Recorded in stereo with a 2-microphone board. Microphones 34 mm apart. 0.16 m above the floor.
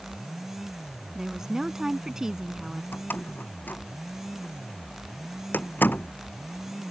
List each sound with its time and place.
1.1 s a woman speaking: 15° right (ahead or behind)
2.9 s a door slam: 80° left